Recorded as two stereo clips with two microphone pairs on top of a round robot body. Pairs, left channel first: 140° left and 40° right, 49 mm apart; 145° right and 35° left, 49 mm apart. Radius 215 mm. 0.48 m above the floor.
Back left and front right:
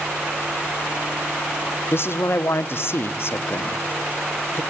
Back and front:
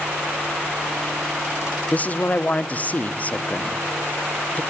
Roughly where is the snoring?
I don't hear snoring.